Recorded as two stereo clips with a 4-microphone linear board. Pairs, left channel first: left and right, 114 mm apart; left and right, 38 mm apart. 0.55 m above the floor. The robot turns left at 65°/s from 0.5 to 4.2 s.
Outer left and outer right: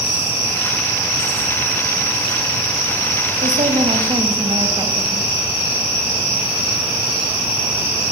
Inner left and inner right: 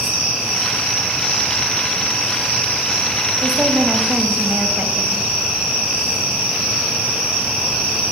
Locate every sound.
3.4 s a woman speaking: 90° right, 4 m; by 5.3 s 145° right, 4 m